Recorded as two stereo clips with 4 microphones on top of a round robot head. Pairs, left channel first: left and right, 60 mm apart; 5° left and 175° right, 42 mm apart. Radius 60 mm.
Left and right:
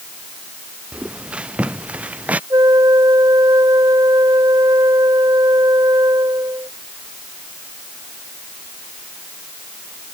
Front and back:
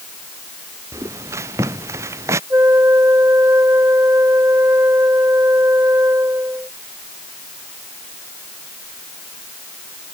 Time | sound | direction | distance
0.9 | footsteps | 165° right | ?
2.5 | a flute | 135° right | ?